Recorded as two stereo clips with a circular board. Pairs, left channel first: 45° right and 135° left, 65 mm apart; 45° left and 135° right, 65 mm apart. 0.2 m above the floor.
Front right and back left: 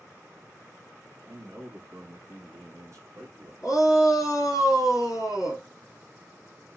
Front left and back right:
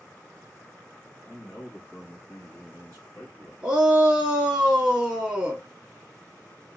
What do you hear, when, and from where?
1.2 s a man speaking: 110° left, 2 m
3.6 s a shout: 60° right, 2.5 m